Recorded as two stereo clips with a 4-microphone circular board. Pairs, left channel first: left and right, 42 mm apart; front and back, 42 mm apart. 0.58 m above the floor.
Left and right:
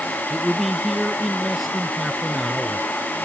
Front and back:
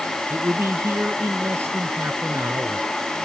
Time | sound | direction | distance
0.3 | a man speaking | 175° right | ?